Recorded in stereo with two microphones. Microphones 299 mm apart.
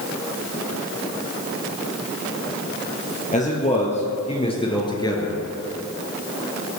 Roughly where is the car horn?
No car horn in this recording.